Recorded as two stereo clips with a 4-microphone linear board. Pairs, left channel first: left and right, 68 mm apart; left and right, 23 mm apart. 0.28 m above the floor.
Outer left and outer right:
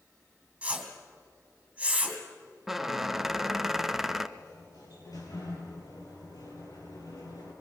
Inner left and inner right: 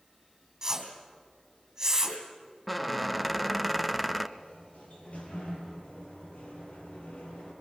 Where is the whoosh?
15° right (ahead or behind), 3 m.